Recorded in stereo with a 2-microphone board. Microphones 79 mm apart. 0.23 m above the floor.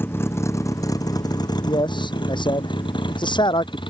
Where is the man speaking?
75° left (ahead or behind).